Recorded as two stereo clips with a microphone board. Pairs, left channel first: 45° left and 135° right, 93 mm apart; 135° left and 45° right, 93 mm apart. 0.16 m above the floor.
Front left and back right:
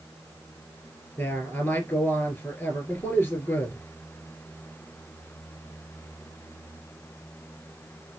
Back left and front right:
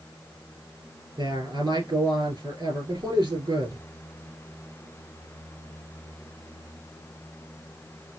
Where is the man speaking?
15° right, 3 m.